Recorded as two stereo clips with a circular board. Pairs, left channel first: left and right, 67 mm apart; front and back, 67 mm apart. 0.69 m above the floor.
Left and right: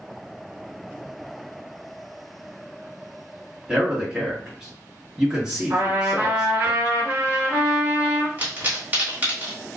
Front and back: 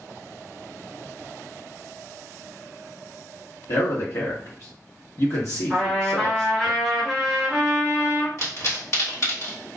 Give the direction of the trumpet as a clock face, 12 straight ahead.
3 o'clock.